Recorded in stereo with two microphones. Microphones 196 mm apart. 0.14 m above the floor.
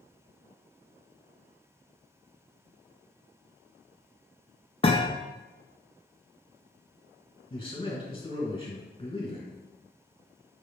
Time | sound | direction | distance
4.8 | a thud | 30° left (ahead or behind) | 0.6 m
7.5 | a man speaking | 30° left (ahead or behind) | 1.6 m